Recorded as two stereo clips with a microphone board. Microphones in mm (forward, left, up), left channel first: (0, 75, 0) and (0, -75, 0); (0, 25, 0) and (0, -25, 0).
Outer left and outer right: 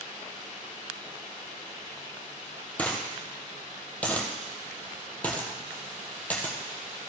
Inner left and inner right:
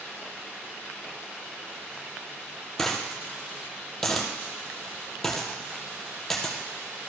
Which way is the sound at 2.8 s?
10° left (ahead or behind).